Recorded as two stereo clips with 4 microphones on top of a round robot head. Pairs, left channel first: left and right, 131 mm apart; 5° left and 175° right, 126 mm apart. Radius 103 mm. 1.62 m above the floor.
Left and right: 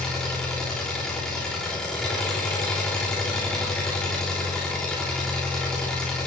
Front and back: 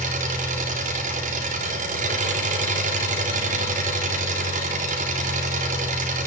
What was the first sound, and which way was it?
An engine running, 175° left.